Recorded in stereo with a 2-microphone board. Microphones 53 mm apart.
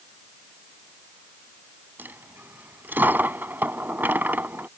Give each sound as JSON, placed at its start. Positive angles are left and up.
{"t": 2.0, "sound": "a dropped coin", "side_deg": -40}